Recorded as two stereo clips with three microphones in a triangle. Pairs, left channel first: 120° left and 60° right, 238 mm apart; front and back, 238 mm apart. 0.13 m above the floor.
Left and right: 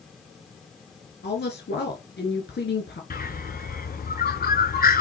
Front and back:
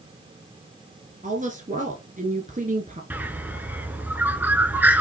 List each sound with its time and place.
1.2 s a woman speaking: 135° left, 1.6 m
3.1 s a bird: 100° left, 1.0 m